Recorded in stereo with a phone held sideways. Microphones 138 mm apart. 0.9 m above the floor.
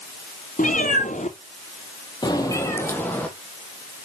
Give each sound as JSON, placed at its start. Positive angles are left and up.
{"t": 0.6, "sound": "a cat meowing", "side_deg": 70, "distance_m": 2.5}